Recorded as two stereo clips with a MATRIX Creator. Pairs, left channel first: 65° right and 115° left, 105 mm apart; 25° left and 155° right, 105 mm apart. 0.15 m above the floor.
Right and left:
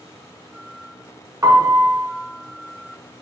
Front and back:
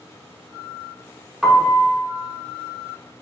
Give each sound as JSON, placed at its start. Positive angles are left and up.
{"t": 1.4, "sound": "a piano", "azimuth_deg": 120, "distance_m": 0.6}